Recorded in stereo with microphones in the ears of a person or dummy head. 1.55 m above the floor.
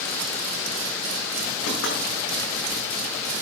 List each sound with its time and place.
1.7 s knocking: 80° left, 6.5 m